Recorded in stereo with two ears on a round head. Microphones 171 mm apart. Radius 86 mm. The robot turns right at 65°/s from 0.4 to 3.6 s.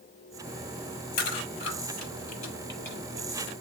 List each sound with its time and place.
1.2 s chewing: 60° left (ahead or behind), 6.5 m; by 3.5 s 30° right (ahead or behind), 6.5 m